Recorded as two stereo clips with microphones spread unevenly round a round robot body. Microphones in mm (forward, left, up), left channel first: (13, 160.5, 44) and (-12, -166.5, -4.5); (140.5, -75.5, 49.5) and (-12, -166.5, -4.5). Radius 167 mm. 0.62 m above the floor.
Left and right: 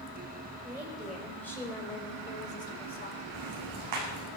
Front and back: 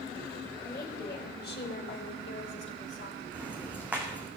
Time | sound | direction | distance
0.6 | a woman speaking | 15° right | 3 m
3.3 | ticking | 65° right | 6 m